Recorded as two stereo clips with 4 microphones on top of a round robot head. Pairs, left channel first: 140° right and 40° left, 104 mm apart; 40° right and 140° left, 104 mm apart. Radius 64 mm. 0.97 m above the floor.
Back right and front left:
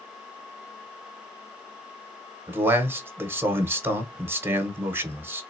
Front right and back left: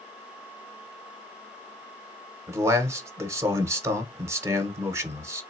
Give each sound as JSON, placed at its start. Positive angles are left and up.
{"t": 2.5, "sound": "a man speaking", "azimuth_deg": 95, "distance_m": 1.0}